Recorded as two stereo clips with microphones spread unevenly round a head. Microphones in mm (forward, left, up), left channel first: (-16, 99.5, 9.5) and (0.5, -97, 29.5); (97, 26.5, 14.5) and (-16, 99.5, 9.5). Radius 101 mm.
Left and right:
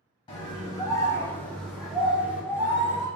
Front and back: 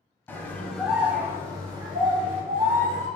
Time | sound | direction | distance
0.3 | a scream | 40° left | 0.7 m